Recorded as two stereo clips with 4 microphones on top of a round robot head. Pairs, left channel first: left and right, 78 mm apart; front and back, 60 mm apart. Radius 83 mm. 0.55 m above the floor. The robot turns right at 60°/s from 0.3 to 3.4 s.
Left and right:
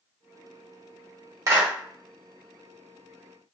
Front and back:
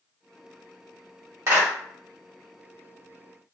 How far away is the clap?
About 1.9 m.